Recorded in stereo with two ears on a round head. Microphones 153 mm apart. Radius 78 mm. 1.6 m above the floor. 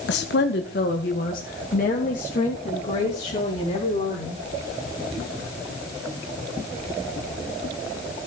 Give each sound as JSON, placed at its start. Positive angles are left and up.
{"t": 0.1, "sound": "a woman speaking", "side_deg": 70, "distance_m": 1.4}